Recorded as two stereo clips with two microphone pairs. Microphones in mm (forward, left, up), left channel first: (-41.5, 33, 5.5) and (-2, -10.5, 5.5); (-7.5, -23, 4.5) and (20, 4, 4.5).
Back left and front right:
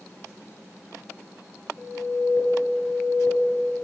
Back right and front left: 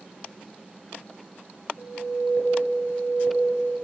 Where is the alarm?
75° left, 1.8 m.